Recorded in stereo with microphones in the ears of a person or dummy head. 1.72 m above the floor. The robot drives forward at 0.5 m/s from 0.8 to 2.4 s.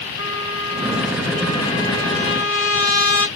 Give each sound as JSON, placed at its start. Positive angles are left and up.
{"t": 0.2, "sound": "a trumpet", "side_deg": 80, "distance_m": 1.6}